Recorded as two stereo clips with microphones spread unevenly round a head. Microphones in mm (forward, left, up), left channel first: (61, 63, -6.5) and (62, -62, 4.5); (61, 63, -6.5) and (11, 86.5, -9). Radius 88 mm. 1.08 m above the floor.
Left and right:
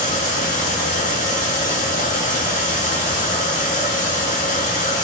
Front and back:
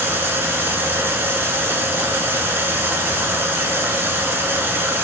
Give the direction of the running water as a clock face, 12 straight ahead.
8 o'clock.